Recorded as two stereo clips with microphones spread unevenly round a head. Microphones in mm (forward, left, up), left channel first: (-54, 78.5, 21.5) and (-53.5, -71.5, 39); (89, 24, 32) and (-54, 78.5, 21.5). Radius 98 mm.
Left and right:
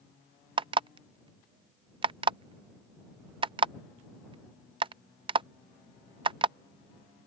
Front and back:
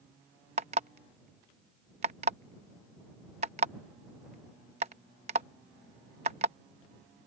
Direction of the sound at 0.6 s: 140° right.